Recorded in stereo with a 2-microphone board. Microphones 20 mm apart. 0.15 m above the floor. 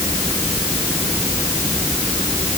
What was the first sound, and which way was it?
Only background noise.